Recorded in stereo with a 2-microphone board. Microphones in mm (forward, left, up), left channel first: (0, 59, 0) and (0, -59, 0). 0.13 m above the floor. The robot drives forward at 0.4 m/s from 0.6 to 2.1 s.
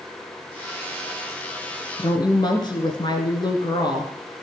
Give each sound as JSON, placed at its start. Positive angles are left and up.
{"t": 2.0, "sound": "a woman speaking", "side_deg": 40, "distance_m": 1.7}